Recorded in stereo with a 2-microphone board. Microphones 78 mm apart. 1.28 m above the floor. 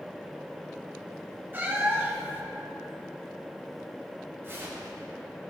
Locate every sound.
1.5 s a cat meowing: 25° right (ahead or behind), 1.2 m
4.4 s tearing paper: 30° right (ahead or behind), 2 m